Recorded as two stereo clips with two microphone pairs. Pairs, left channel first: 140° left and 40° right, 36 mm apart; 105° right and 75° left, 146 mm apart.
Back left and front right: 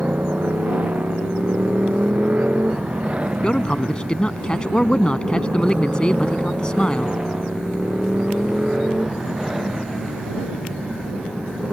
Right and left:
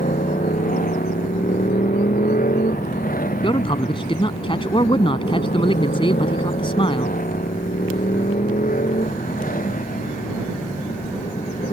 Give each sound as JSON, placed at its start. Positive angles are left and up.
{"t": 0.0, "sound": "a motorcycle", "azimuth_deg": -90}
{"t": 3.4, "sound": "a man speaking", "azimuth_deg": -155}